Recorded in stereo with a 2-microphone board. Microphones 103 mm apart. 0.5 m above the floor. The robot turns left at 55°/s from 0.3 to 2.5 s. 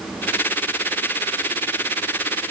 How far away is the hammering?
I don't hear hammering.